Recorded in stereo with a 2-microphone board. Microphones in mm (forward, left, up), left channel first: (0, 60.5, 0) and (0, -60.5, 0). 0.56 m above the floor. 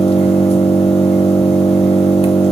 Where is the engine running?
55° left (ahead or behind), 0.9 m.